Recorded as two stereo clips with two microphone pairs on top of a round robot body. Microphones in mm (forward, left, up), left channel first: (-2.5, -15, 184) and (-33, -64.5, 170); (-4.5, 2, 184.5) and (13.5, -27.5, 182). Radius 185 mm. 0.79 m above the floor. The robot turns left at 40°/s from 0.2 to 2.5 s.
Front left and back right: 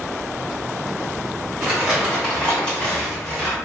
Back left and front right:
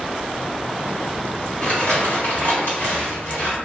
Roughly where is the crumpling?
Behind.